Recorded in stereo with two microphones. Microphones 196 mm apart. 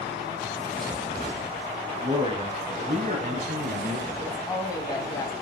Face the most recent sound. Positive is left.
turn(degrees=20)  # may be behind; listen again after turning